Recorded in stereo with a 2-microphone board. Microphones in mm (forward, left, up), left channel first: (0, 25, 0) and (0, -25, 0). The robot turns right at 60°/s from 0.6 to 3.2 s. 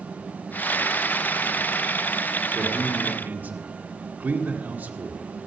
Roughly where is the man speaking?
Behind.